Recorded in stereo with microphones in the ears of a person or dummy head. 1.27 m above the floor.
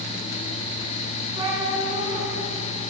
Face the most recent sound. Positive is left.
turn(degrees=-25)  # may be behind; listen again after turning